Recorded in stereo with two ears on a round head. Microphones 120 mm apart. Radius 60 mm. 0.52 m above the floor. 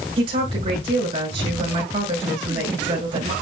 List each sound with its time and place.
0.2 s a woman speaking: 35° right (ahead or behind), 6 m